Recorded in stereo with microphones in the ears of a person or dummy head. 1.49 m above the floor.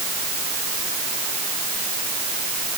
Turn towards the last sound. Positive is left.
No sound to turn to.